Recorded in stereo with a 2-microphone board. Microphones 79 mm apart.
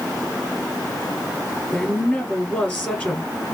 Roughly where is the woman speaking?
Left.